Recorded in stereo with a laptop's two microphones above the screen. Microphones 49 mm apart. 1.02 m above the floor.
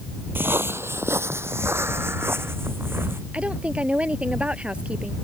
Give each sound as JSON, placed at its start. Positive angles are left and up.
{"t": 0.3, "sound": "footsteps", "side_deg": -50}
{"t": 3.3, "sound": "a woman speaking", "side_deg": -25}